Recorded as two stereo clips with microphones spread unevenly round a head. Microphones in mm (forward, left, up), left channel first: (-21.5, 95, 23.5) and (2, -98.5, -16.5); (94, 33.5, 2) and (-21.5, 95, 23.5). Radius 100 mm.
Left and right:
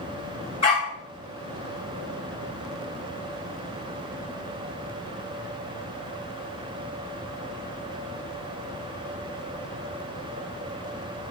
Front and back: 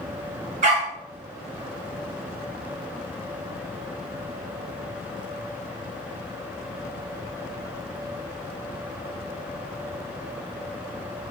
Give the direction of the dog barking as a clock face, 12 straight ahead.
7 o'clock.